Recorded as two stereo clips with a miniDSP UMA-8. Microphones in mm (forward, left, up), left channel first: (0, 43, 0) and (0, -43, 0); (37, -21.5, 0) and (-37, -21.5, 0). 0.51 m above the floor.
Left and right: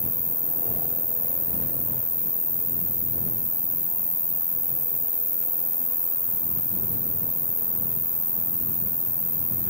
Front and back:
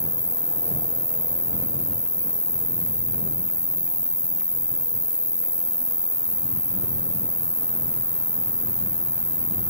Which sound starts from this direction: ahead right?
An insect, at 0.0 s.